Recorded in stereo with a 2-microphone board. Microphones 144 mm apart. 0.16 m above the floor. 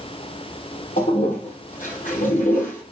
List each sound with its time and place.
1.0 s a toilet flushing: 70° left (ahead or behind), 3.5 m